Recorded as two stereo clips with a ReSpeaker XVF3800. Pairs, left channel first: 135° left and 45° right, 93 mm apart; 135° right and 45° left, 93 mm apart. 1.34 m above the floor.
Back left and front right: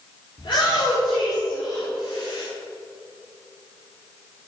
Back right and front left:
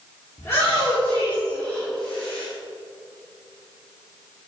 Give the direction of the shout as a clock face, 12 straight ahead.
6 o'clock.